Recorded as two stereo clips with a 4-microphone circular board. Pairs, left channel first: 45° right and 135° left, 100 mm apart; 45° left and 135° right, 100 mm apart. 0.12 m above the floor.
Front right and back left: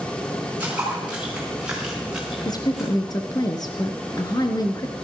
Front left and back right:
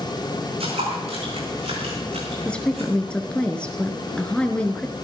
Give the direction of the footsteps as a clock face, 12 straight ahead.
5 o'clock.